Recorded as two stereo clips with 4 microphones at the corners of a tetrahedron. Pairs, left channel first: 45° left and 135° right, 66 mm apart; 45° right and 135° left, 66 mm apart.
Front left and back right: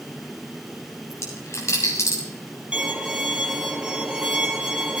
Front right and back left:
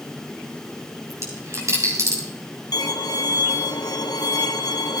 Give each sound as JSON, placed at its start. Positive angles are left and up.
{"t": 1.1, "sound": "a dropped coin", "azimuth_deg": 90, "distance_m": 6.0}
{"t": 2.7, "sound": "a violin", "azimuth_deg": -60, "distance_m": 2.0}